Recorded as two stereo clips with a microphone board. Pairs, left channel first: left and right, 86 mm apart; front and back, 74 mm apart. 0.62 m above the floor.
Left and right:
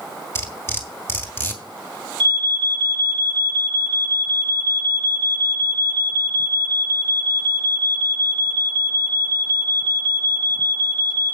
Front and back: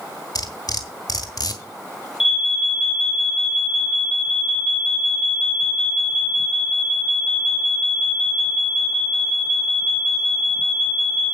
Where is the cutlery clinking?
30° left, 2 m.